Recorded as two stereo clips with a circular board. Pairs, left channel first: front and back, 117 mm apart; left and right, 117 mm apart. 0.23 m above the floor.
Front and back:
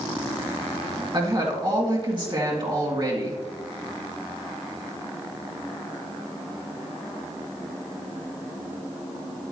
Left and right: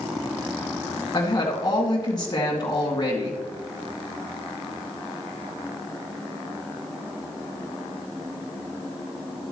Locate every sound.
1.1 s a woman speaking: 140° left, 1.9 m